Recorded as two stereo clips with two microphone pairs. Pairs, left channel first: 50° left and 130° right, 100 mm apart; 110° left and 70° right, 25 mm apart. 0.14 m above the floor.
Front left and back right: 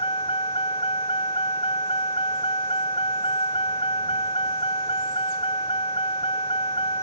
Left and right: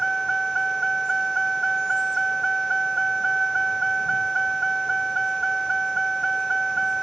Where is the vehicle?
30° left.